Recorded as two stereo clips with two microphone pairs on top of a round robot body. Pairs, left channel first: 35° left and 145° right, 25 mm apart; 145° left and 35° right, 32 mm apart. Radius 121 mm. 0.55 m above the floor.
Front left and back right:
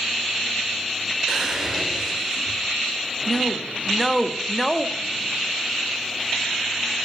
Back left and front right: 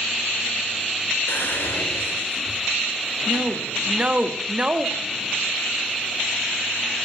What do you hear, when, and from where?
1.3 s whispering: 145° left, 2.5 m
3.3 s a woman speaking: 60° right, 1.5 m